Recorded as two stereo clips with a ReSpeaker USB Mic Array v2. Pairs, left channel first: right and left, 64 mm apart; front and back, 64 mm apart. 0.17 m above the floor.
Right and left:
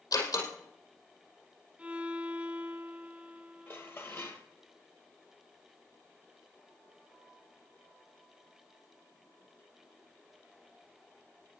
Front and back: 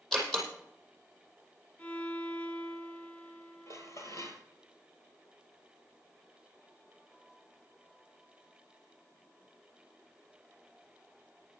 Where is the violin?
40° left, 1.3 m.